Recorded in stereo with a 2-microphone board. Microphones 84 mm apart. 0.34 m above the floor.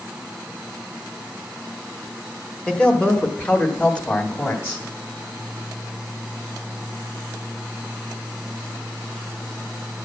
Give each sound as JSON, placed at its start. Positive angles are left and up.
{"t": 2.7, "sound": "a man speaking", "side_deg": 10, "distance_m": 1.5}